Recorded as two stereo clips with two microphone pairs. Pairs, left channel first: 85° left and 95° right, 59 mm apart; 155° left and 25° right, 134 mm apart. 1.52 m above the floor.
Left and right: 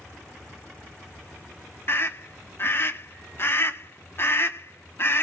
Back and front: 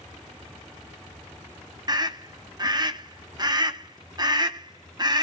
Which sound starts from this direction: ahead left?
A scream, at 1.9 s.